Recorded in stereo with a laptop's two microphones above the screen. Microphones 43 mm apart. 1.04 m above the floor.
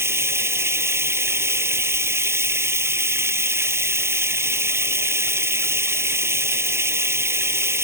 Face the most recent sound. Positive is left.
turn(degrees=-85)